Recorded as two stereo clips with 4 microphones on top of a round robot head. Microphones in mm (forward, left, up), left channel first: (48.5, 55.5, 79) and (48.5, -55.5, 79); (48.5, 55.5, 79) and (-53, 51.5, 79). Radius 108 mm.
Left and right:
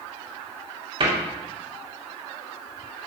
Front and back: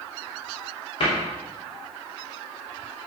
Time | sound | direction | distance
1.0 | a cupboard door | 50° right | 2.5 m